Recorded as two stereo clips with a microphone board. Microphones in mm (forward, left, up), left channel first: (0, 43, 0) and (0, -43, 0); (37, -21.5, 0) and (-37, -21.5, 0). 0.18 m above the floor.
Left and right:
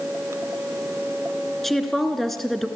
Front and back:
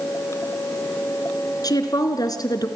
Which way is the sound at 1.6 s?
Straight ahead.